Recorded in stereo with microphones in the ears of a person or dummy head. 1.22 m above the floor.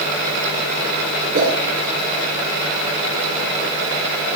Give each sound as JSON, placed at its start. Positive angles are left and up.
{"t": 1.3, "sound": "a whoosh", "side_deg": -50, "distance_m": 5.5}